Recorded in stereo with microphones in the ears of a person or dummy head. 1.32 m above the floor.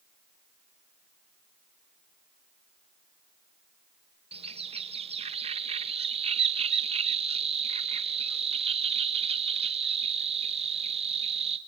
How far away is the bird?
About 1.0 m.